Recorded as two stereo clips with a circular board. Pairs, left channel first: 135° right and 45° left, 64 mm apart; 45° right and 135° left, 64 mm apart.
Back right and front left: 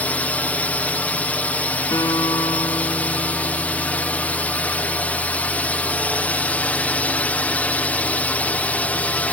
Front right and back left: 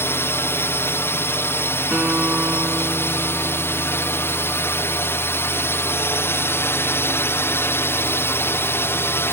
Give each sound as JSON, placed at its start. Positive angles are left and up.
{"t": 0.0, "sound": "a drone", "azimuth_deg": -75}
{"t": 1.9, "sound": "a guitar", "azimuth_deg": -155}